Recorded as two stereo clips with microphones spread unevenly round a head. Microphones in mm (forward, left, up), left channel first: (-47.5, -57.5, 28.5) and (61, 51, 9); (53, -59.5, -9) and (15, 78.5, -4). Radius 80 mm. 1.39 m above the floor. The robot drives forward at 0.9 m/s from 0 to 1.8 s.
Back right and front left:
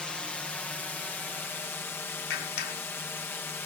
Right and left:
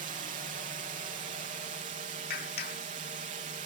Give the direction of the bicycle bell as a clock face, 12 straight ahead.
I don't hear a bicycle bell.